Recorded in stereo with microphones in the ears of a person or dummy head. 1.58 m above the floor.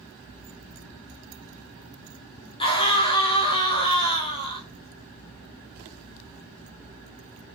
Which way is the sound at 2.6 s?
30° left (ahead or behind).